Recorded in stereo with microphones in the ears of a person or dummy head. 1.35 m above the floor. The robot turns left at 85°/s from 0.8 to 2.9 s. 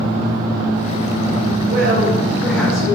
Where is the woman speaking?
105° right, 0.6 m; by 3.0 s 150° left, 0.6 m.